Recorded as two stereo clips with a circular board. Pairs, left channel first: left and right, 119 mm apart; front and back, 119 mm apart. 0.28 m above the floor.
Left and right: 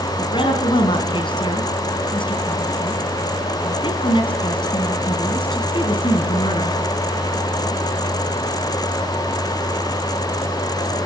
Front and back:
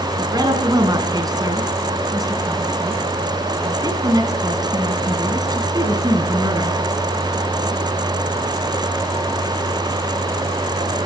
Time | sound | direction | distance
0.2 | a woman speaking | 130° left | 3 m